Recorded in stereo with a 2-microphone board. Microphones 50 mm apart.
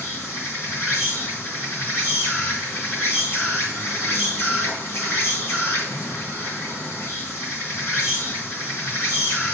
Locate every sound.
0.0 s an insect: 55° left (ahead or behind), 3.5 m